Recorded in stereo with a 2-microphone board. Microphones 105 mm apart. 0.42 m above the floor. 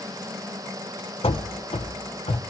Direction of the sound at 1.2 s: 60° left (ahead or behind).